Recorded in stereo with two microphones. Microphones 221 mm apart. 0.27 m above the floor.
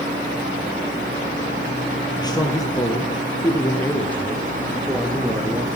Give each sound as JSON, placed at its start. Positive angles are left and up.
{"t": 2.2, "sound": "a man speaking", "side_deg": 15, "distance_m": 6.0}